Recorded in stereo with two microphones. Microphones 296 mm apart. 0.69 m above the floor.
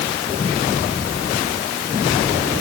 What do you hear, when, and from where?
Only background noise.